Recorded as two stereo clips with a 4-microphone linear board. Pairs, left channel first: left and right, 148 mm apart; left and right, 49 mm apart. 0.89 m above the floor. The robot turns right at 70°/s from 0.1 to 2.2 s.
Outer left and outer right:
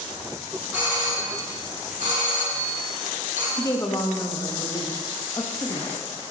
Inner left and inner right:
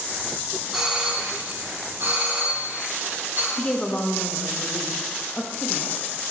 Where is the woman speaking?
25° left (ahead or behind), 0.8 m.